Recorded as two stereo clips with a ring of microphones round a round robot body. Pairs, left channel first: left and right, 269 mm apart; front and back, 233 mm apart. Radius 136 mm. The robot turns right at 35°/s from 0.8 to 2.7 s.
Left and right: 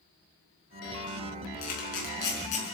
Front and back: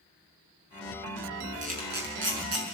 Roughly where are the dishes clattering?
No dishes clattering in this recording.